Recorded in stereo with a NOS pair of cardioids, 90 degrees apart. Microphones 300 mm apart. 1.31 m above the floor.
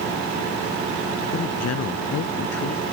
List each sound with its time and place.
1.3 s a man speaking: 55° left